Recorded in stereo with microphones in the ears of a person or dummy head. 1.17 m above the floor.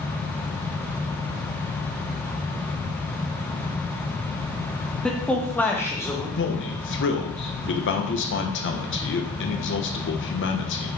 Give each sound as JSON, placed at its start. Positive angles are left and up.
{"t": 5.0, "sound": "a man speaking", "side_deg": 5, "distance_m": 1.2}
{"t": 6.4, "sound": "a man speaking", "side_deg": 55, "distance_m": 1.1}